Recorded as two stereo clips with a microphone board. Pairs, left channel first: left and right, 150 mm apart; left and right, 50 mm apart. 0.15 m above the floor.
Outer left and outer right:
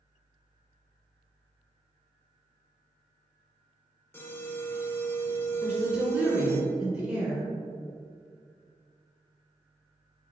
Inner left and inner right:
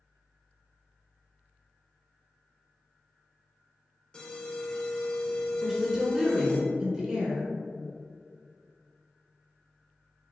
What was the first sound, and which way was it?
An alarm, 15° left (ahead or behind).